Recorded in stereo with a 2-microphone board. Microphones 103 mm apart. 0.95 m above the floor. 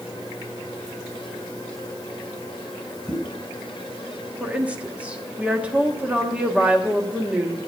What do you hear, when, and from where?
3.1 s a pop: 5° left (ahead or behind), 1.2 m
4.4 s a woman speaking: 15° right (ahead or behind), 1.3 m